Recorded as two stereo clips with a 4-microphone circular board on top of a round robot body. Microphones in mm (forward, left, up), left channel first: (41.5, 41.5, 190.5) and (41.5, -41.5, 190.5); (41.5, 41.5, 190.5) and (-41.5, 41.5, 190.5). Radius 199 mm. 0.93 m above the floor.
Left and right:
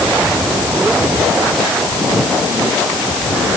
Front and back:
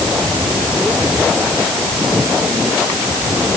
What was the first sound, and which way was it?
Only background noise.